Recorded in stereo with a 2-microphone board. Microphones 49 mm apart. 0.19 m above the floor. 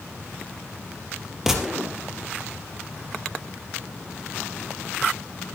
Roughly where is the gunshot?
Centre.